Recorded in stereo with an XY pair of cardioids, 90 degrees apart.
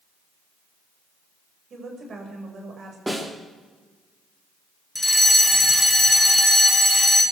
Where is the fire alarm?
5° left, 3 m.